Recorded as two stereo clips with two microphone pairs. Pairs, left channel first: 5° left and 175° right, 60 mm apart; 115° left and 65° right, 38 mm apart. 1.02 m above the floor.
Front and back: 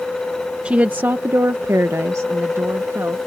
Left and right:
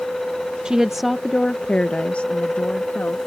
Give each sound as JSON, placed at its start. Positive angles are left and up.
{"t": 0.7, "sound": "a woman speaking", "azimuth_deg": -120}